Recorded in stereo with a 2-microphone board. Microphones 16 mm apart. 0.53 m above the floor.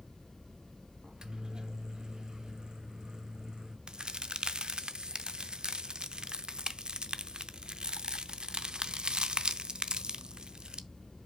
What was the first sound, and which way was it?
A microwave, 50° right (ahead or behind).